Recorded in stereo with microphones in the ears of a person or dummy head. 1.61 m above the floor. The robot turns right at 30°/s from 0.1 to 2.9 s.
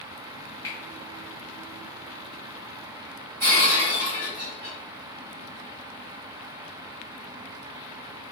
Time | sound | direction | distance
0.6 | a finger snap | 20° left (ahead or behind) | 1.2 m
3.4 | breaking glass | 40° right (ahead or behind) | 1.1 m